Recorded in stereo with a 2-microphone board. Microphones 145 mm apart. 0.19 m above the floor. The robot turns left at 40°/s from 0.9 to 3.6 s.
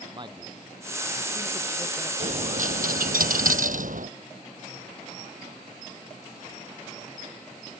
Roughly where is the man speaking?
Right.